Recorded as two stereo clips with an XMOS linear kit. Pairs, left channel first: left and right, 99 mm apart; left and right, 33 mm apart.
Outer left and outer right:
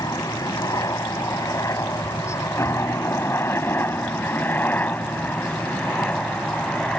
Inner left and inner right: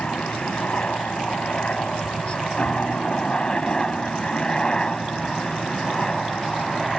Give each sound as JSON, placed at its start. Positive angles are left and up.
{"t": 0.0, "sound": "a helicopter", "side_deg": 40}